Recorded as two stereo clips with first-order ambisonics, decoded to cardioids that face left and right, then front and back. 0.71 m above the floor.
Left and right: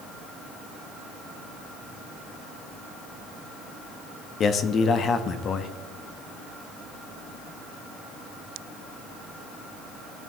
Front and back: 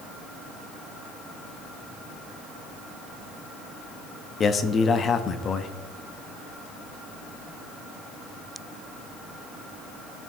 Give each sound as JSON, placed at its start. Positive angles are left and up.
{"t": 4.4, "sound": "a man speaking", "azimuth_deg": 50, "distance_m": 0.6}